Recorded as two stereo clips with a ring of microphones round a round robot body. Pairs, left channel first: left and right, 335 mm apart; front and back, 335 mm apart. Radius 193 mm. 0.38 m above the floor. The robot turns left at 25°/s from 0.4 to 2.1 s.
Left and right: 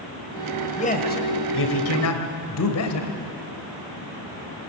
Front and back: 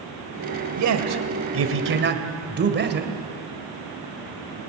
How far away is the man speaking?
About 2.5 m.